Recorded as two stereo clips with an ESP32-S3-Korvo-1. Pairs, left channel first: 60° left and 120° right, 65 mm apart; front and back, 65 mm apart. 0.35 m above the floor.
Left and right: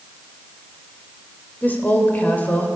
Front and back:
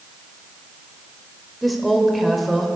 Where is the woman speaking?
90° left, 1.5 m.